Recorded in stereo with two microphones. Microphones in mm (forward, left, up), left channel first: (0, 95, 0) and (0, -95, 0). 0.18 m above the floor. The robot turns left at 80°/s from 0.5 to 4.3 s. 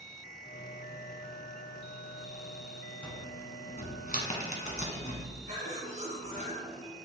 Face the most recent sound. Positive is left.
turn(degrees=-40)  # may be behind; listen again after turning